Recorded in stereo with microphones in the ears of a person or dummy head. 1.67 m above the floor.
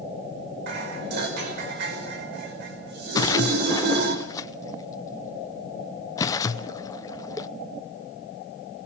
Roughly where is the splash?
Left.